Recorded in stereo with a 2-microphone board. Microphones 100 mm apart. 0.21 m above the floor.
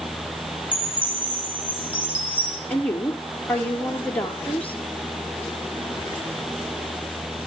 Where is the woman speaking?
15° left (ahead or behind), 4 m.